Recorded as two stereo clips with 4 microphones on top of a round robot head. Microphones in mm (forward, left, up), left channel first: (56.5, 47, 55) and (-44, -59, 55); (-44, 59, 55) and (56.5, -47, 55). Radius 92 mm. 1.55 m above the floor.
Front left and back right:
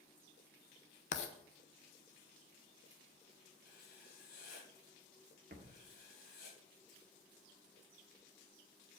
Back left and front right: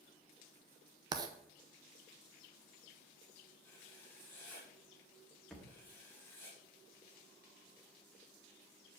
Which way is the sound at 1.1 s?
15° left.